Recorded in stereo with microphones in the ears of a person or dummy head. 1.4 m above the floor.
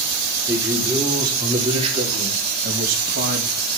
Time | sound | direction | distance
0.5 | a man speaking | 20° right (ahead or behind) | 5 m